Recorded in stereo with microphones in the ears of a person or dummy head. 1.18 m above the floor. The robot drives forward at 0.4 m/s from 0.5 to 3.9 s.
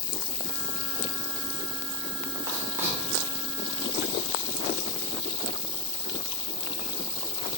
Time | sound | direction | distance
0.0 | an insect | 50° left (ahead or behind) | 1.4 m
2.5 | writing | 15° right (ahead or behind) | 1.5 m